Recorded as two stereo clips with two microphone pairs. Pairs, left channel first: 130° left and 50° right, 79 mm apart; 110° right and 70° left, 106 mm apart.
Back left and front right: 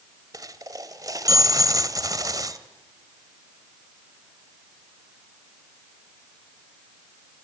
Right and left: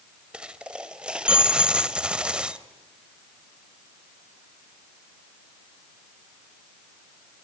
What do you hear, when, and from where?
0.3 s a dropped coin: 10° right, 1.4 m